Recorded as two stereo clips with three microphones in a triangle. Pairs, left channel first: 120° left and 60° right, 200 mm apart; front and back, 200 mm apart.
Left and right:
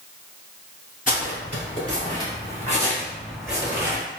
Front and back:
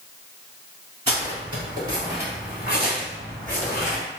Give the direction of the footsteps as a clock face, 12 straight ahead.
7 o'clock.